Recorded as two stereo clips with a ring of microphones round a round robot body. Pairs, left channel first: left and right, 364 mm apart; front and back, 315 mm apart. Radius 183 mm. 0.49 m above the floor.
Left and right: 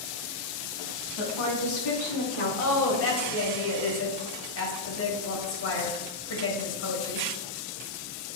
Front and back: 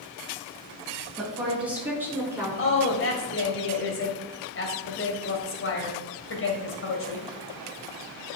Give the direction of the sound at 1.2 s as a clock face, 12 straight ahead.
9 o'clock.